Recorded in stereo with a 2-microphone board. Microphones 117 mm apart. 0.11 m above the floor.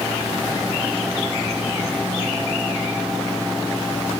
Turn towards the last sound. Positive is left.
No sound to turn to.